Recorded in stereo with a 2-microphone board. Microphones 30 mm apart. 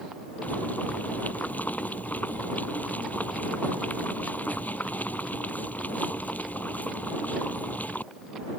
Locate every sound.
0.4 s boiling: 75° left (ahead or behind)